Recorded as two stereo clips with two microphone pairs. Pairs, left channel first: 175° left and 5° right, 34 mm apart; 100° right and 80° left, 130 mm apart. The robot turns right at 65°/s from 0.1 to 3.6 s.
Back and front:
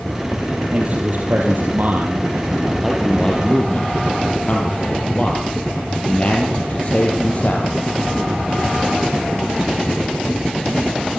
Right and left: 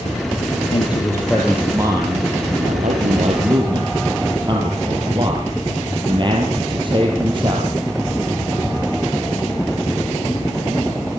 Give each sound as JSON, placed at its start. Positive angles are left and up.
{"t": 0.7, "sound": "a man speaking", "azimuth_deg": -55, "distance_m": 4.0}